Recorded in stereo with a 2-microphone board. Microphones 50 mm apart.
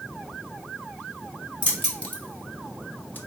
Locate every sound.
1.6 s keys jangling: 25° left (ahead or behind), 1.2 m; by 3.2 s 40° left (ahead or behind), 0.6 m